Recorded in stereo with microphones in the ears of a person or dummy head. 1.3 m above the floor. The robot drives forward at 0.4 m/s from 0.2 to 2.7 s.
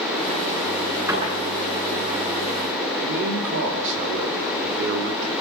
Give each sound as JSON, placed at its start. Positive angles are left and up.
{"t": 1.1, "sound": "a door slam", "side_deg": -15, "distance_m": 9.5}
{"t": 3.0, "sound": "a man speaking", "side_deg": -65, "distance_m": 2.5}